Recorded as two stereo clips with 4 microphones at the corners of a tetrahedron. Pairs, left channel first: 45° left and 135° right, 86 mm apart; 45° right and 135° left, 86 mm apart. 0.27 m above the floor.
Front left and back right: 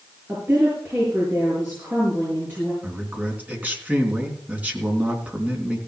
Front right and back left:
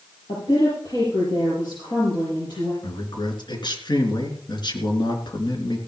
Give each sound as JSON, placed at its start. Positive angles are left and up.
{"t": 0.3, "sound": "a woman speaking", "azimuth_deg": -70, "distance_m": 6.5}
{"t": 2.8, "sound": "a man speaking", "azimuth_deg": -65, "distance_m": 3.5}